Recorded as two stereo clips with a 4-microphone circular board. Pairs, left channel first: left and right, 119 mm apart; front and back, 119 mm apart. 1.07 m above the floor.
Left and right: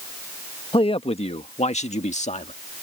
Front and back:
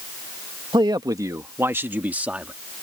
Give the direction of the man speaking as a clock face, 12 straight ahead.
8 o'clock.